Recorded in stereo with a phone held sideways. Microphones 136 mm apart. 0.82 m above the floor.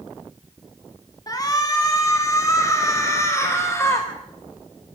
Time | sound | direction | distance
1.3 | a shout | 30° left (ahead or behind) | 2 m